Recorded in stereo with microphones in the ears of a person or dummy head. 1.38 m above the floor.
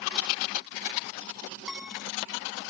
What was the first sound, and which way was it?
A piano, 5° right (ahead or behind).